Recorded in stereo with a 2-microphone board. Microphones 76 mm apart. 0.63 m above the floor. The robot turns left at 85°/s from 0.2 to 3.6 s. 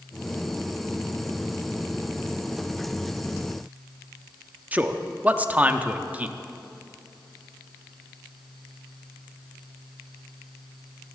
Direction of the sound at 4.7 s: 20° right (ahead or behind).